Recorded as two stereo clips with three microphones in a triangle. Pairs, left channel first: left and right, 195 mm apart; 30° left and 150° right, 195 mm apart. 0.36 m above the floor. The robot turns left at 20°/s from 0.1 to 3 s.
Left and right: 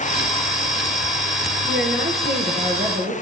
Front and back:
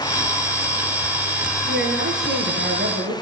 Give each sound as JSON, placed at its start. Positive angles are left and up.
{"t": 1.7, "sound": "a woman speaking", "azimuth_deg": -120, "distance_m": 8.0}